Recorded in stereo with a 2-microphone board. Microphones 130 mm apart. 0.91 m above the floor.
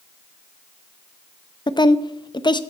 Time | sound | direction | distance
1.7 | a woman speaking | 35° left (ahead or behind) | 0.5 m